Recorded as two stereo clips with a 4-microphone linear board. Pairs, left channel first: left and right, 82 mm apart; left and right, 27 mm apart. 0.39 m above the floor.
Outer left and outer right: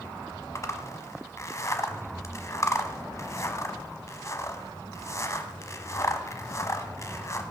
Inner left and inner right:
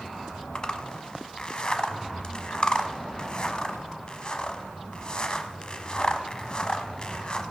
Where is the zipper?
35° left (ahead or behind), 1.0 m.